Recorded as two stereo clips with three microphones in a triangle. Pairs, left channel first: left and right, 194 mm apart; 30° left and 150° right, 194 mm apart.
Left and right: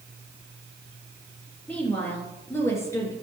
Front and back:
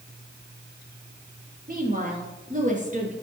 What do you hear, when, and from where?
1.7 s a woman speaking: 175° left, 4 m; by 3.1 s 165° left, 3.5 m